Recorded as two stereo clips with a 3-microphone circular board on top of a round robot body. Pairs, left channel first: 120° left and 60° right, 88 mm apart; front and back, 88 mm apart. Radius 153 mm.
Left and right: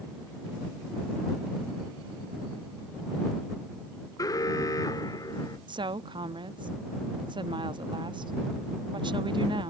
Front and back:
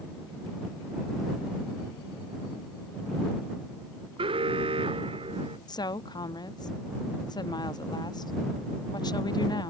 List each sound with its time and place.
4.2 s an alarm: 170° left
5.7 s a woman speaking: 35° right